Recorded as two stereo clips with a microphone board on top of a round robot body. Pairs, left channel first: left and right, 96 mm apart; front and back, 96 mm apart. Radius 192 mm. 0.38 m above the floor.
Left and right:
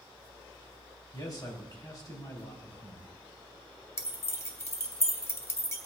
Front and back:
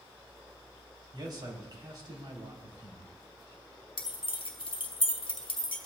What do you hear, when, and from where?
1.1 s a man speaking: 140° left, 2.5 m
4.0 s keys jangling: 30° left, 1.4 m